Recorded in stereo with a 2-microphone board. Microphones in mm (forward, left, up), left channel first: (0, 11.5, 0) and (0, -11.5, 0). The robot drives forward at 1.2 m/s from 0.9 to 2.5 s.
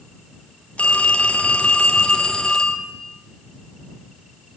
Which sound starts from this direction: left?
A phone ringing, at 0.8 s.